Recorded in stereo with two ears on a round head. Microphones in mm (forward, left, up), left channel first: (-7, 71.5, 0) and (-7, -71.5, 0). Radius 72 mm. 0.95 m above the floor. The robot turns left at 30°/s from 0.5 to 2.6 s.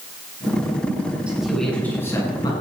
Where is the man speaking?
175° right, 8.5 m; by 2.5 s 150° left, 8.5 m.